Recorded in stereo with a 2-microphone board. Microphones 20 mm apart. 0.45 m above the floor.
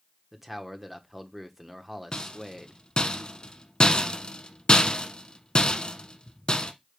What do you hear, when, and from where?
0.3 s a man speaking: 10° right (ahead or behind), 1.0 m
2.1 s a rattle: 40° left (ahead or behind), 1.1 m